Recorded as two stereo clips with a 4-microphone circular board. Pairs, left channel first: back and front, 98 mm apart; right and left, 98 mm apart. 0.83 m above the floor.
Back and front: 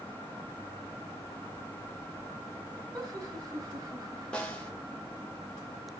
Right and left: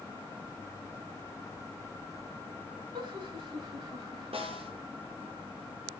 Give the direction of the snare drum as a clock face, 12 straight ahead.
9 o'clock.